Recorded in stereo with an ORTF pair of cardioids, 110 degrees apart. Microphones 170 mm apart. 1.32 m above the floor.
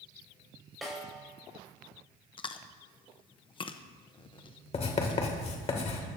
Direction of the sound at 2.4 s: 30° left.